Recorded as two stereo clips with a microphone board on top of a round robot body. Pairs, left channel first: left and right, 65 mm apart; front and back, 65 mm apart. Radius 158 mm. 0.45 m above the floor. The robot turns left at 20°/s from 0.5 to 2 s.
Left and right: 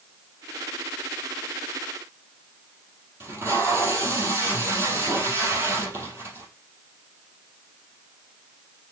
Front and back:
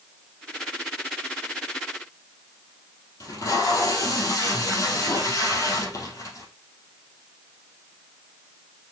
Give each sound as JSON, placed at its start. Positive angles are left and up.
{"t": 3.2, "sound": "tape being pulled", "azimuth_deg": -35, "distance_m": 3.0}